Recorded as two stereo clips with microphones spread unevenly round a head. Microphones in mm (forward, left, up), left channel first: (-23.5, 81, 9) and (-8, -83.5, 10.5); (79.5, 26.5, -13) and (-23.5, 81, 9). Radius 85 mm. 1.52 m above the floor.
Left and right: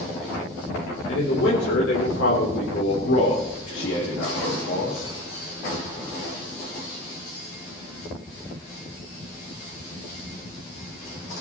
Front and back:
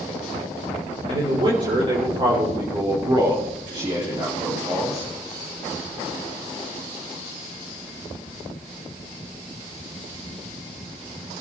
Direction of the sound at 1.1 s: 110° left.